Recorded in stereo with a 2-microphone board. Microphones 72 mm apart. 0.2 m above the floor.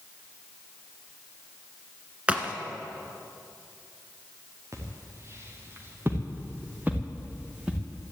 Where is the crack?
15° right (ahead or behind), 1.4 m.